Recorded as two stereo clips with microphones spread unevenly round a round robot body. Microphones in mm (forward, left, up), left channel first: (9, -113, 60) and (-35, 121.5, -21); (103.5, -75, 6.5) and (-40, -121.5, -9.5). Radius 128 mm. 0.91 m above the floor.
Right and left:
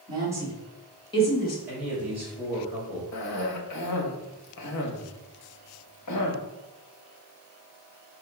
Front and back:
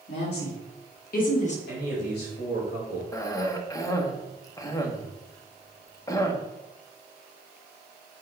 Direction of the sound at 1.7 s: 20° left.